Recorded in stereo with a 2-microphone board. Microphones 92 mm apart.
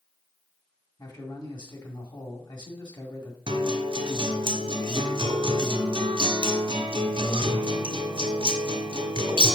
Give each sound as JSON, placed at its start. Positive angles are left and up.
{"t": 1.0, "sound": "a man speaking", "side_deg": 50, "distance_m": 1.9}
{"t": 3.5, "sound": "a guitar", "side_deg": -75, "distance_m": 1.5}